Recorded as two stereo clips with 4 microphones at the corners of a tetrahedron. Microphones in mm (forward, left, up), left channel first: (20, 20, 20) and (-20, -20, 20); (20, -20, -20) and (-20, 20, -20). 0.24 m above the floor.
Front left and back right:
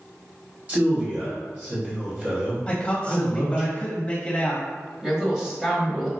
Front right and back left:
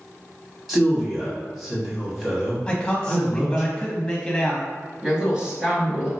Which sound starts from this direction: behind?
A woman speaking, at 5.0 s.